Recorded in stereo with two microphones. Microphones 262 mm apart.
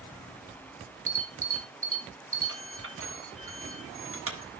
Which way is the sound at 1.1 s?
55° right (ahead or behind).